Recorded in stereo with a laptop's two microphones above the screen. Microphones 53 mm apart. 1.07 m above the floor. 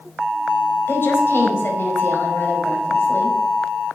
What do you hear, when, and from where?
0.9 s a woman speaking: 45° left (ahead or behind), 4.5 m